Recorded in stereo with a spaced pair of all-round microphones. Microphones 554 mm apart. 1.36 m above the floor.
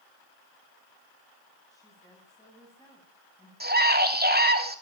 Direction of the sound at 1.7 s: 5° left (ahead or behind).